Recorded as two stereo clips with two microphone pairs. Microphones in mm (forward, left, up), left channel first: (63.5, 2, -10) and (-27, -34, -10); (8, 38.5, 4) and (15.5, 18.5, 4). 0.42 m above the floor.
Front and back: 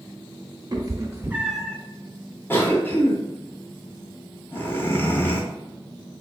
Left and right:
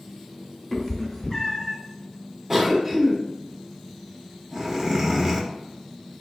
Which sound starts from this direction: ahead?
A cough, at 2.5 s.